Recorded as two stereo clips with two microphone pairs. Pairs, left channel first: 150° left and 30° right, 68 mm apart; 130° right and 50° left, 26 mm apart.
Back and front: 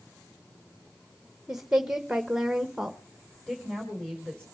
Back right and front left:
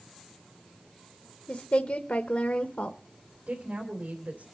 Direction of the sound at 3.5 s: 70° left.